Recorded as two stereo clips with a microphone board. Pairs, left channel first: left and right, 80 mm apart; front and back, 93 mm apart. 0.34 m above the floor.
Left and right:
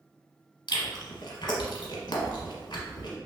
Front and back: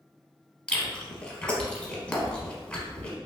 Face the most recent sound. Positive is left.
turn(degrees=80)